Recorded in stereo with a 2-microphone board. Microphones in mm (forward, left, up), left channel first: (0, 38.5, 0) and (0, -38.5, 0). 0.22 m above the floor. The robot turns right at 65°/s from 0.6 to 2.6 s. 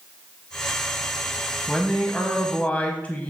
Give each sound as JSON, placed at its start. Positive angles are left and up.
{"t": 1.7, "sound": "a man speaking", "side_deg": 10, "distance_m": 1.0}